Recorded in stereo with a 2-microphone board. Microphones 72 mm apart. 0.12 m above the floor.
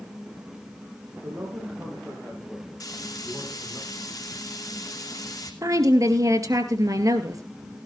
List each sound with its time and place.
1.1 s a man speaking: 30° right (ahead or behind), 7 m; by 3.8 s centre (ahead or behind), 7 m
2.8 s frying: 55° left (ahead or behind), 2.5 m
5.6 s a woman speaking: 50° right (ahead or behind), 2.0 m